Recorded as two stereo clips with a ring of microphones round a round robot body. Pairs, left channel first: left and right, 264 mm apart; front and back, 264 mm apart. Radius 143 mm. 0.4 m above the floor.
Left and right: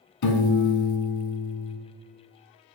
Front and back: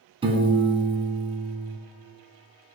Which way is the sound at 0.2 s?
110° left.